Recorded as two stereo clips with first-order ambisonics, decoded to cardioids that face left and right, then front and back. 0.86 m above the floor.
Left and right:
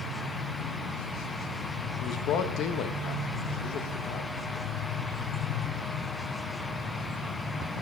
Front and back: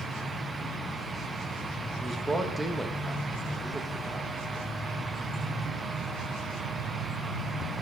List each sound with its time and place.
2.0 s a man speaking: 100° left, 0.8 m